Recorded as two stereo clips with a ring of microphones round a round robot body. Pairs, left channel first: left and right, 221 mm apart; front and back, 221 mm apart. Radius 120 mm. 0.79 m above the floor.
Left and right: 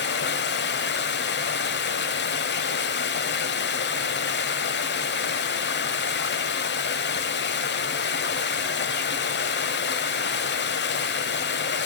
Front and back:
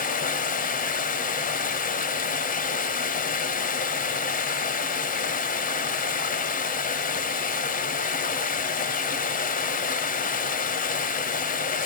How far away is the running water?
About 1.1 m.